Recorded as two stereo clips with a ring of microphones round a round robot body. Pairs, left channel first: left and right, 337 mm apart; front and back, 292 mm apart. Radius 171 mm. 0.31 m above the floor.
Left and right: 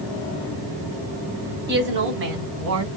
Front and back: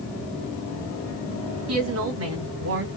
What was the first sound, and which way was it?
A woman speaking, 145° right.